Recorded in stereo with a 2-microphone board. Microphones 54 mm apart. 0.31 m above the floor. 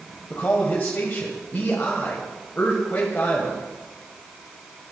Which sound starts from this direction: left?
A man speaking, at 0.3 s.